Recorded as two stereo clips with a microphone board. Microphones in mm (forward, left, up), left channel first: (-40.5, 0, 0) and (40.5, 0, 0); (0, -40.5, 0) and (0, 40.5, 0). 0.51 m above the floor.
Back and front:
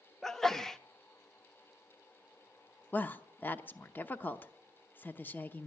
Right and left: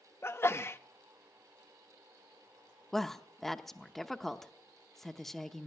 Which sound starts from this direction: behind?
A woman speaking, at 2.9 s.